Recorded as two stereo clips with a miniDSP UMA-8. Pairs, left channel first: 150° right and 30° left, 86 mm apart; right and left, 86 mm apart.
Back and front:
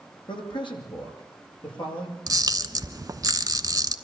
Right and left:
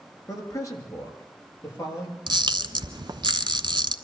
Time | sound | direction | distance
0.3 | a man speaking | 140° right | 4.5 m
2.3 | a camera shutter | 70° left | 0.9 m